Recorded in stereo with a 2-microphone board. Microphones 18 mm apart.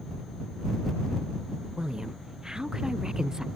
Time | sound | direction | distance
1.8 | a woman speaking | 30° right (ahead or behind) | ?